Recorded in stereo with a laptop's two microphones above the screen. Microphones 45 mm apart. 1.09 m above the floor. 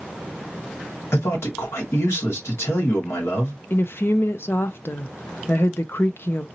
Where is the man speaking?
85° left, 2 m.